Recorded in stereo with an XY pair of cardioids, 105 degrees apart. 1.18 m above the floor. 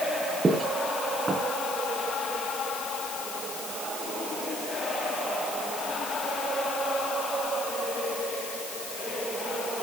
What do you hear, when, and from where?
0.4 s footsteps: 35° right, 4 m